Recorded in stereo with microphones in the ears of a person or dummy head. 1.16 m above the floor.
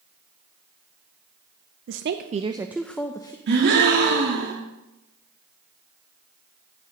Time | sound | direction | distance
1.9 | a woman speaking | 65° right (ahead or behind) | 0.7 m
3.5 | a gasp | 55° right (ahead or behind) | 1.7 m